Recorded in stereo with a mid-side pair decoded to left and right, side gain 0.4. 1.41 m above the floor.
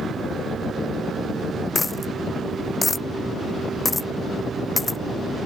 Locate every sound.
1.8 s a dropped coin: 25° left